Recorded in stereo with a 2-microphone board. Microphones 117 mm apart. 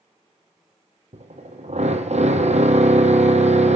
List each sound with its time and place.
1.1 s a drill: 70° right (ahead or behind), 3 m